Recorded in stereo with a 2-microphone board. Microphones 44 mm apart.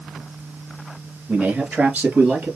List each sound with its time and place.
1.3 s a man speaking: 25° right (ahead or behind), 1.9 m; by 2.5 s 40° right (ahead or behind), 2.5 m